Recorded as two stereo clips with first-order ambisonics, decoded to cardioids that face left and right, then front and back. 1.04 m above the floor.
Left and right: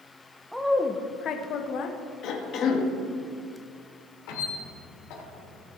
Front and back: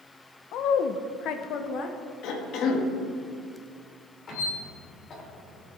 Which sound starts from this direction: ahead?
A woman speaking, at 0.5 s.